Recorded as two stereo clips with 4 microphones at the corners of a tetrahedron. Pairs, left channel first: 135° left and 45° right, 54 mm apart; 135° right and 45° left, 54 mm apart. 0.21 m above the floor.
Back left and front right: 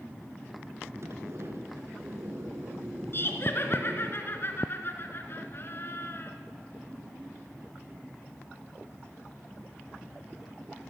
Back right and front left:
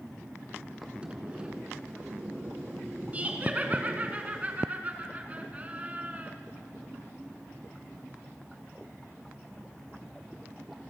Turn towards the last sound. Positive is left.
turn(degrees=105)